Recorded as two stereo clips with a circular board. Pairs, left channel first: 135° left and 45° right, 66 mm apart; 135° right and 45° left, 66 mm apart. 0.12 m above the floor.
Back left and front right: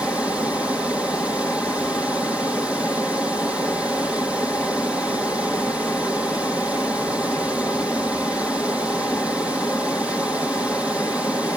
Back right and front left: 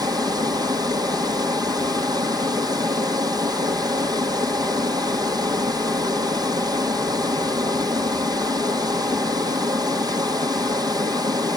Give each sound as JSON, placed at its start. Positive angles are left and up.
{"t": 0.0, "sound": "running water", "azimuth_deg": 30, "distance_m": 1.9}